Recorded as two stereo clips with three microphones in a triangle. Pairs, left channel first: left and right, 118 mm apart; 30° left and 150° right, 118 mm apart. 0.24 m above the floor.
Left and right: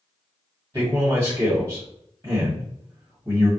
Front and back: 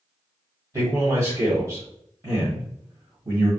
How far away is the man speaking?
About 1.3 m.